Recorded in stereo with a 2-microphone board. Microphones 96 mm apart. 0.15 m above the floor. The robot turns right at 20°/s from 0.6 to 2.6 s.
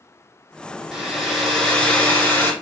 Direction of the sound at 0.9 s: 5° right.